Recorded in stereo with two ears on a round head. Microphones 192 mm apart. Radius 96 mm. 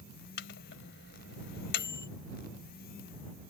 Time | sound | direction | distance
0.4 | a microwave | 55° left (ahead or behind) | ?